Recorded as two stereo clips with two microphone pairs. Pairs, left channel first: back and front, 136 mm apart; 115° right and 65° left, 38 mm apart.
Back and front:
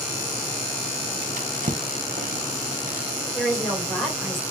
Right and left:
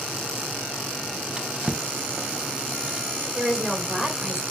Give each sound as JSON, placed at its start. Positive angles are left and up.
{"t": 1.4, "sound": "a drawer", "azimuth_deg": 5, "distance_m": 0.6}
{"t": 3.4, "sound": "a woman speaking", "azimuth_deg": 95, "distance_m": 1.5}